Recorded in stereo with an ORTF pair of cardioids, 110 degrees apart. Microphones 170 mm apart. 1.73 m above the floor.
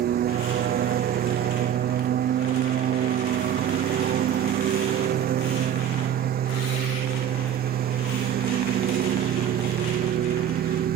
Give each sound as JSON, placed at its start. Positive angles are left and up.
{"t": 0.0, "sound": "a lawn mower", "azimuth_deg": -65}